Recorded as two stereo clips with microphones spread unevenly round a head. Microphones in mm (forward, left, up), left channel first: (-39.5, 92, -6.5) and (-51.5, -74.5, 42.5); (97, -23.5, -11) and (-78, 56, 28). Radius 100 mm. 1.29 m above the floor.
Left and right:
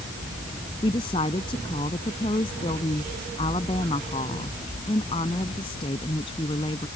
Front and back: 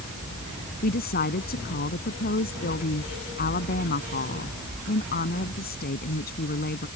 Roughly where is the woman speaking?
Ahead.